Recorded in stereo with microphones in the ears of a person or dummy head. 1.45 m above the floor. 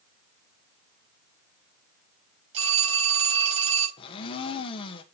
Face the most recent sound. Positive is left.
turn(degrees=30)  # may be behind; listen again after turning